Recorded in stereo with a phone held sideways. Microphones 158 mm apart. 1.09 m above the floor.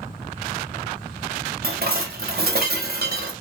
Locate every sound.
1.6 s dishes clattering: 75° right (ahead or behind), 0.6 m